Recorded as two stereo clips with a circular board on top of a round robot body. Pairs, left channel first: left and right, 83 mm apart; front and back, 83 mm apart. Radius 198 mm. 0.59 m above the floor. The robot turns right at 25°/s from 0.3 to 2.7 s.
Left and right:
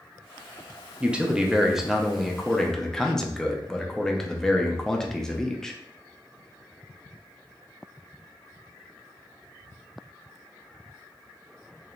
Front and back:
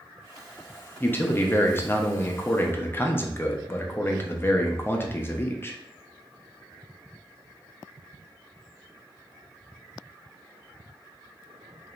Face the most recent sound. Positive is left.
turn(degrees=15)